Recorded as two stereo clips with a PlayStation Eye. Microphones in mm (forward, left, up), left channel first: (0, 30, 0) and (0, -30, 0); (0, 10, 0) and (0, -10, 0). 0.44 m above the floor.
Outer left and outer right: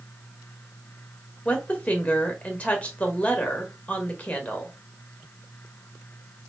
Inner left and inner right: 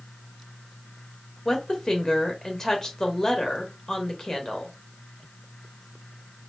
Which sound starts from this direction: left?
A woman speaking, at 1.4 s.